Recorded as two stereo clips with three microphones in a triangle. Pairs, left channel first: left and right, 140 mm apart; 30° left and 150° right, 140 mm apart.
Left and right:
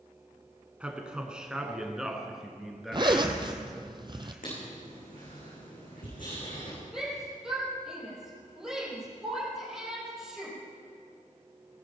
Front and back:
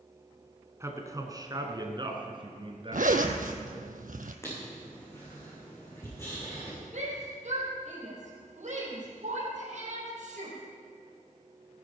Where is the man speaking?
155° right, 1.7 m; by 3.9 s straight behind, 3 m.